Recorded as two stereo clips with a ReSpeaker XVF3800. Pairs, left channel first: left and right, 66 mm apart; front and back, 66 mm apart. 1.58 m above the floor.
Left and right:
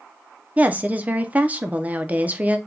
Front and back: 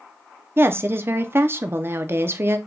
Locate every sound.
0.6 s a woman speaking: 145° right, 0.5 m